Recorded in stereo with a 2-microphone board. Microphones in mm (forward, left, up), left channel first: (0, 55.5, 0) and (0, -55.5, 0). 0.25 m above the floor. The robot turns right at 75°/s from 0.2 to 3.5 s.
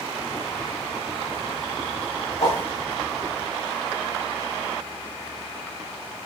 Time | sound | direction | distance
2.4 | a whoosh | 65° left (ahead or behind) | 3 m